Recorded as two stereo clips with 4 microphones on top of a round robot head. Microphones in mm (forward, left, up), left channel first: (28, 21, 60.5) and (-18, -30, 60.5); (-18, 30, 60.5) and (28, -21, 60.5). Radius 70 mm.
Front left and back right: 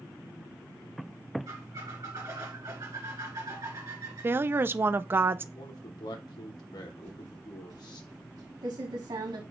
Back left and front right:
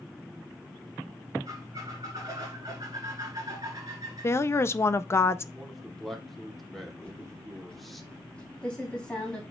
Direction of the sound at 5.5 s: 45° left.